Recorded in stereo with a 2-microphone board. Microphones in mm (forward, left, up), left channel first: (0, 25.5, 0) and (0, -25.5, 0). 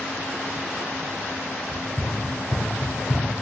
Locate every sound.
1.7 s running footsteps: 10° left (ahead or behind), 1.8 m; by 3.3 s 55° left (ahead or behind), 2 m